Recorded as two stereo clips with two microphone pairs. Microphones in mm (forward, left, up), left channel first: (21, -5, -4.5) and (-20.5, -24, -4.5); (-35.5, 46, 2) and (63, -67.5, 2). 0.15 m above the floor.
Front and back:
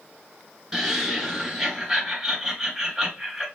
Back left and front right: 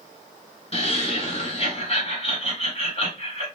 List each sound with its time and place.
0.7 s laughter: 115° left, 1.8 m